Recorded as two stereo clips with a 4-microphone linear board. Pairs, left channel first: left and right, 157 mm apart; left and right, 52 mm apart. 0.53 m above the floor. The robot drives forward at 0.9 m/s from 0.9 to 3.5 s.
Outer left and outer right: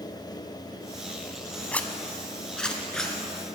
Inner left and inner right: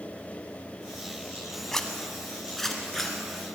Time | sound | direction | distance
1.7 | a zipper | 10° left (ahead or behind) | 1.1 m